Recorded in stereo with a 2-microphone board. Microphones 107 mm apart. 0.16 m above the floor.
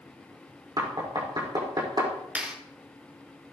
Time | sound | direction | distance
0.8 | knocking | 45° right (ahead or behind) | 5.5 m
2.4 | a clap | 15° right (ahead or behind) | 4 m